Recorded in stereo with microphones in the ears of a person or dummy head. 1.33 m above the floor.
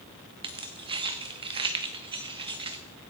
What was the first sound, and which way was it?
Keys jangling, 25° right (ahead or behind).